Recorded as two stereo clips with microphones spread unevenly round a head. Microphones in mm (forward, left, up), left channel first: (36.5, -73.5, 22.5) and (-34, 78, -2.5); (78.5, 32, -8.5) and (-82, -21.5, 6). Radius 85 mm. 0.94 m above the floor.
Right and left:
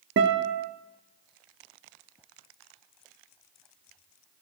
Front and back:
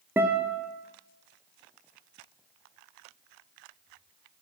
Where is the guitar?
120° left, 0.6 m.